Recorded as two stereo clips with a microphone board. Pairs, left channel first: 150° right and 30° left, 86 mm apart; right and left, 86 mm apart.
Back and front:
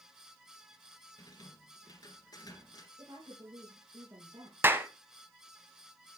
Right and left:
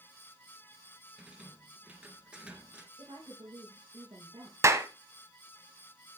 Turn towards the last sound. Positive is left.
turn(degrees=70)